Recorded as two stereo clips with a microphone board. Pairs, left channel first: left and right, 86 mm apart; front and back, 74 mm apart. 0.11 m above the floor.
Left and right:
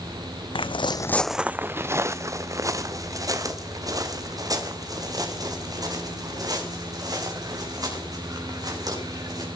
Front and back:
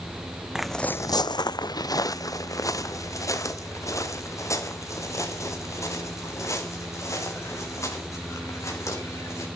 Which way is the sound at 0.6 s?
95° left.